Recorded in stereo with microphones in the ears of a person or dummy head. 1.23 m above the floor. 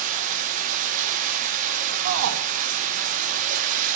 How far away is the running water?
About 0.9 m.